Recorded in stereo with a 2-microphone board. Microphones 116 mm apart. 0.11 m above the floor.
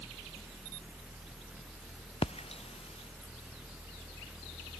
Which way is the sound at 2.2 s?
60° left (ahead or behind).